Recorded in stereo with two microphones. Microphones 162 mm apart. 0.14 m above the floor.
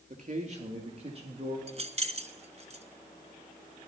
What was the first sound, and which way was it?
A man speaking, 50° right (ahead or behind).